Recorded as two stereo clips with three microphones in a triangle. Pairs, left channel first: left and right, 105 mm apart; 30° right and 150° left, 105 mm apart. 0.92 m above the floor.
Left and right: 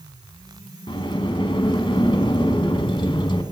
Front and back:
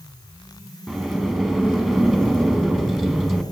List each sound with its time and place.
0.9 s a sliding door: 60° left, 1.0 m